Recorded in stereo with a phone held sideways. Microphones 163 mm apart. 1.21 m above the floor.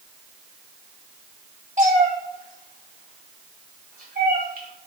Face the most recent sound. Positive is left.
turn(degrees=-70)  # may be behind; listen again after turning